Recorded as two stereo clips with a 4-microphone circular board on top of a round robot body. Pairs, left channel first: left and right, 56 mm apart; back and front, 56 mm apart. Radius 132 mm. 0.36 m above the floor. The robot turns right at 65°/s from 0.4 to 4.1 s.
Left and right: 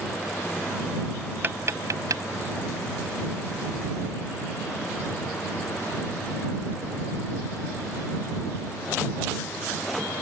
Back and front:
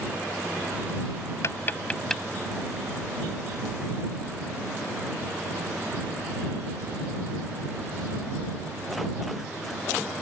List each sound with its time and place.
1.4 s tapping: 145° right; by 2.2 s 90° right